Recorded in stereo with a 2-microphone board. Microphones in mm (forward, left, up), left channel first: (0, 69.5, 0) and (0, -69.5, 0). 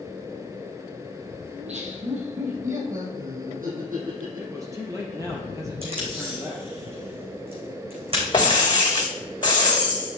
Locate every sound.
1.5 s laughter: 50° right (ahead or behind), 3.5 m; by 5.4 s 75° right (ahead or behind), 6 m
4.4 s a man speaking: 25° right (ahead or behind), 3.5 m
5.8 s tape being pulled: 45° right (ahead or behind), 4.5 m
8.3 s breaking glass: 35° left (ahead or behind), 1.9 m